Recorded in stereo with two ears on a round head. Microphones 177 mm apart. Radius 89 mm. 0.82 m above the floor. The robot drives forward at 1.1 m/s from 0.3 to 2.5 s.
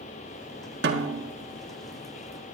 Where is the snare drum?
60° right (ahead or behind), 1.5 m; by 1.3 s 65° right (ahead or behind), 1.4 m.